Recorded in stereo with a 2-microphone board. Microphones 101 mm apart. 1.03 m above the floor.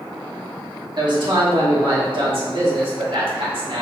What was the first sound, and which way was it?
A man speaking, 50° right (ahead or behind).